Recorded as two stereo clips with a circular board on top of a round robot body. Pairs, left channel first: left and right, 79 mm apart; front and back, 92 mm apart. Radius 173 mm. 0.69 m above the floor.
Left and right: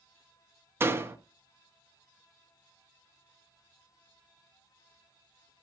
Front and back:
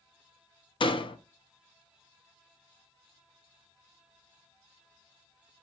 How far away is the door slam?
About 0.8 m.